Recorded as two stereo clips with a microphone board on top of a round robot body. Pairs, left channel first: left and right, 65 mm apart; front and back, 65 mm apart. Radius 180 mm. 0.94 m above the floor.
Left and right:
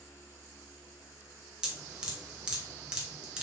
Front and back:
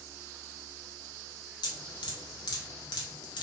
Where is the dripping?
10° right, 0.8 m.